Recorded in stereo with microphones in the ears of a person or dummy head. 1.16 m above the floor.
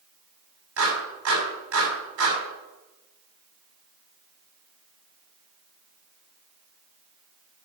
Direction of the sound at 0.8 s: 80° right.